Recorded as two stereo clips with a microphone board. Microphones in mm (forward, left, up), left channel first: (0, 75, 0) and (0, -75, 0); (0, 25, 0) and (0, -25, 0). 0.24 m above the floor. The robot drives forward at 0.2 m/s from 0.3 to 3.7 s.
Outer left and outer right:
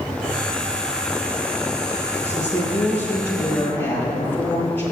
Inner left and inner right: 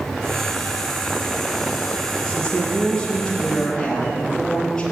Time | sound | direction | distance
2.2 | a woman speaking | 15° left (ahead or behind) | 5.5 m